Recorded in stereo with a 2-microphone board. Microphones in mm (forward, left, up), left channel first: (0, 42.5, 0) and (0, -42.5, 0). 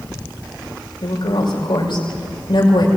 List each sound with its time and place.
1.0 s a woman speaking: 75° left (ahead or behind), 6.5 m